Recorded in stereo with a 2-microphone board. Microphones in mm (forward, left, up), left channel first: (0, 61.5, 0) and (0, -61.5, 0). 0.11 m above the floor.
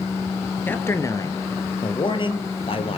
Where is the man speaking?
15° left (ahead or behind), 2.5 m; by 3.0 s 50° left (ahead or behind), 3.5 m.